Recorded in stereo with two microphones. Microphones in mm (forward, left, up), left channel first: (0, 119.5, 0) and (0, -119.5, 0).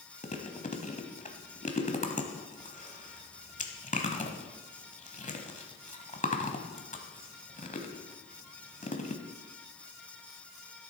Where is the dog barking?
I don't hear a dog barking.